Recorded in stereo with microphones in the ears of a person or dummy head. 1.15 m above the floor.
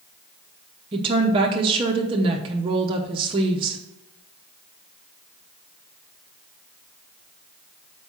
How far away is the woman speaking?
About 0.7 m.